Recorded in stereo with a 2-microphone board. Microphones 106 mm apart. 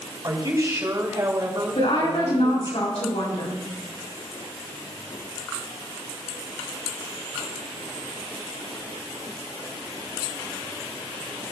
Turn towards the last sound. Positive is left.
turn(degrees=85)